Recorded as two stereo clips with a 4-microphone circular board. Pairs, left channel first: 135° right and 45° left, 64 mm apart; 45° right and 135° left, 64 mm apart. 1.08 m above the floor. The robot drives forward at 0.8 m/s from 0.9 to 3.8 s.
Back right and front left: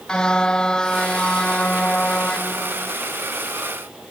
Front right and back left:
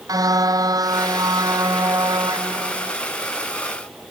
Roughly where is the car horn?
Behind left.